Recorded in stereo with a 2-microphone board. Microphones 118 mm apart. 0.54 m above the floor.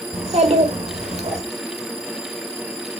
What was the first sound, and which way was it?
A child speaking, 65° right (ahead or behind).